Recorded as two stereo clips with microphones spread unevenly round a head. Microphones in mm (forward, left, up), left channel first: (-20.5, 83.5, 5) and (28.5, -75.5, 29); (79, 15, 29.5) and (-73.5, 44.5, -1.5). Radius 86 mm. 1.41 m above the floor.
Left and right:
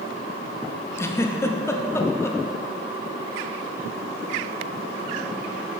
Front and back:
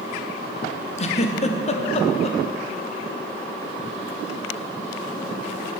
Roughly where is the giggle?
Ahead left.